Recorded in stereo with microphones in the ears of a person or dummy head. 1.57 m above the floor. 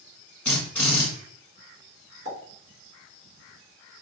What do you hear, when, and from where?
0.5 s a drill: 10° left (ahead or behind), 1.5 m
2.2 s a pop: 60° left (ahead or behind), 1.9 m